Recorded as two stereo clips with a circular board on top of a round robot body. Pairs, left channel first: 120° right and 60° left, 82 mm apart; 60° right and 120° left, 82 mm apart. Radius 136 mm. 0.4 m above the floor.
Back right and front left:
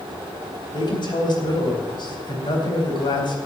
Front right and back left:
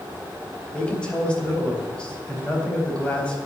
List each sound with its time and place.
0.7 s a man speaking: 135° right, 4 m